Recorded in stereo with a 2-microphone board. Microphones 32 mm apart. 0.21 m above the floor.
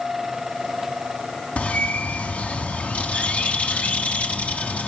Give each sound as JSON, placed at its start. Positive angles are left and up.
{"t": 1.6, "sound": "a bird", "side_deg": 45, "distance_m": 1.2}